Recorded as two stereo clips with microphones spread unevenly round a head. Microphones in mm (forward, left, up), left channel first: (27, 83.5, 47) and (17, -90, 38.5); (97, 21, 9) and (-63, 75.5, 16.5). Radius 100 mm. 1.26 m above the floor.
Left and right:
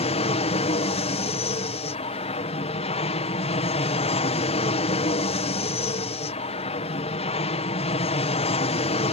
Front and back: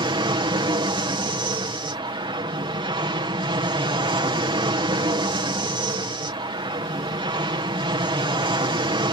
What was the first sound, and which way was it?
An aircraft, 115° left.